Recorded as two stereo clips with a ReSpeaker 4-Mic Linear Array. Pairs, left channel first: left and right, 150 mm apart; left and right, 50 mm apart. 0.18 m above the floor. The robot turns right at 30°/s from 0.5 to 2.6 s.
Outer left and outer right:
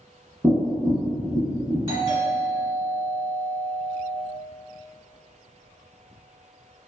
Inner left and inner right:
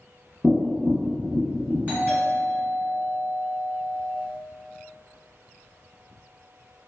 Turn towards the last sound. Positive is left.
turn(degrees=-30)  # may be behind; listen again after turning